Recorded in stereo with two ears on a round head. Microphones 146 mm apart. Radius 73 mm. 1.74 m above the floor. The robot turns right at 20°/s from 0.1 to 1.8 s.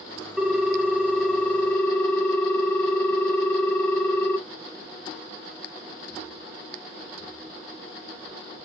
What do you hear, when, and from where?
0.4 s a ringtone: centre (ahead or behind), 0.8 m; by 4.4 s 10° left (ahead or behind), 0.8 m